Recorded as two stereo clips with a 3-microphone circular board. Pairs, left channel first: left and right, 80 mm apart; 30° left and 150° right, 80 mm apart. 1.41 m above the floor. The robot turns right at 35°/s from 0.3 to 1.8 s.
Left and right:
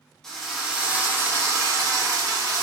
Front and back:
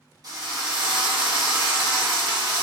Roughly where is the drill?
Behind.